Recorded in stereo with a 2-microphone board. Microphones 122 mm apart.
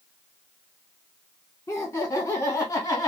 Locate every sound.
1.7 s laughter: 25° left (ahead or behind), 1.6 m; by 3.1 s 30° left (ahead or behind), 1.9 m